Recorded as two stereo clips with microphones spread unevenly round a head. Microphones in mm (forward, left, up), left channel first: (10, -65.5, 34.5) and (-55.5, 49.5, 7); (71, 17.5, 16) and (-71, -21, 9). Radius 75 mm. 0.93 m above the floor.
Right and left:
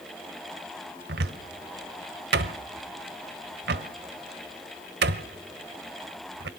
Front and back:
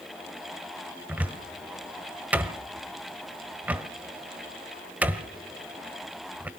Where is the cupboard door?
115° left, 1.4 m.